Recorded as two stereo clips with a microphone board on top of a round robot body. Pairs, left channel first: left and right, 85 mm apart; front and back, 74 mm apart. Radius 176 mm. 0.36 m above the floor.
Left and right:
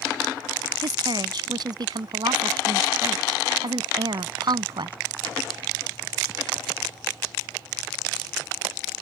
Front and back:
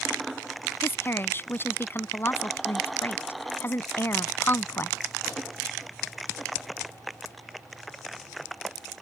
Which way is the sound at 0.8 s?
60° right.